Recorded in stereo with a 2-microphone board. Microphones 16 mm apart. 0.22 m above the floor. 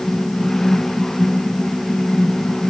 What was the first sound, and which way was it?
Only background noise.